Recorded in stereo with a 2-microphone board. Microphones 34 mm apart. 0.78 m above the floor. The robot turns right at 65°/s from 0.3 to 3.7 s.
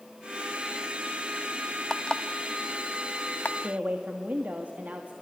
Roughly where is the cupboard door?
I don't hear a cupboard door.